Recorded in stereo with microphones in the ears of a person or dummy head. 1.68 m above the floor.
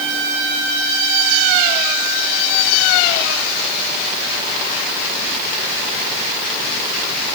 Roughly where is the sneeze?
I don't hear a sneeze.